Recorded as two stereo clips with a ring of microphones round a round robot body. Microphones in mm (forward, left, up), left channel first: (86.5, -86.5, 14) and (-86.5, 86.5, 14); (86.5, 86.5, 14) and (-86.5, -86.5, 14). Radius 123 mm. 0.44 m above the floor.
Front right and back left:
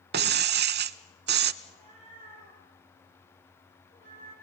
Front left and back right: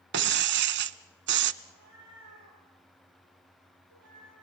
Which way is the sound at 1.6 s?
115° right.